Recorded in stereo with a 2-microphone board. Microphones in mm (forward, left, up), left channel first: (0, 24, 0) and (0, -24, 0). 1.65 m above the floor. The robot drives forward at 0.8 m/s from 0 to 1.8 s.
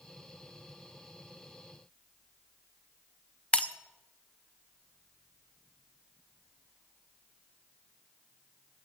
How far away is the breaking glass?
About 0.8 m.